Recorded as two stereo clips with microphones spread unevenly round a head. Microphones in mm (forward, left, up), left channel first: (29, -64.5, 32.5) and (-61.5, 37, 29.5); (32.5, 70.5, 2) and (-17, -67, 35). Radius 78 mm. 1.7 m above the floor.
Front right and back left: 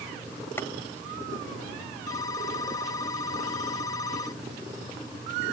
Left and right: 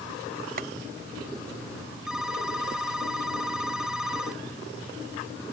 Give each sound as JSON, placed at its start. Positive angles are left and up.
{"t": 0.6, "sound": "boiling", "azimuth_deg": -120}
{"t": 2.1, "sound": "a phone ringing", "azimuth_deg": -65}